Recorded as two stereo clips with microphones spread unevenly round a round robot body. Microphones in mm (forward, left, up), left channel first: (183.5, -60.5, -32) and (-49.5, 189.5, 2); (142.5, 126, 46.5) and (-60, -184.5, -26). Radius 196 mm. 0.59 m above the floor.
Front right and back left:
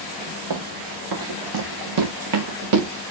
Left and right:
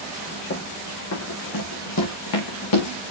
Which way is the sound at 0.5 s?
115° left.